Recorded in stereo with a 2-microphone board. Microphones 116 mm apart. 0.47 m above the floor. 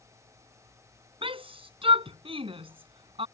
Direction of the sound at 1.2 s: 55° right (ahead or behind).